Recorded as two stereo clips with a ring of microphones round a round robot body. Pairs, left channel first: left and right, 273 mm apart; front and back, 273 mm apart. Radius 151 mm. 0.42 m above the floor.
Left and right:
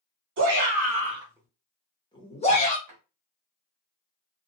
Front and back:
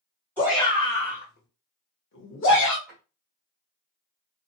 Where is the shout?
80° right, 1.4 m; by 2.8 s 35° left, 1.9 m.